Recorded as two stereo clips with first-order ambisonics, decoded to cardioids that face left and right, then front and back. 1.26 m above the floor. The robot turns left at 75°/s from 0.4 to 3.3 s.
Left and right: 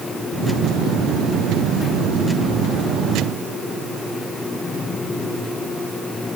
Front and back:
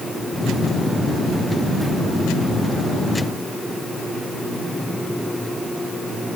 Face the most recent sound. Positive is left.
No sound to turn to.